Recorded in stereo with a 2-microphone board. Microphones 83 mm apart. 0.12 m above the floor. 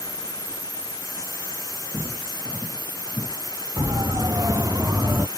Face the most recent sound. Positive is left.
turn(degrees=-40)  # may be behind; listen again after turning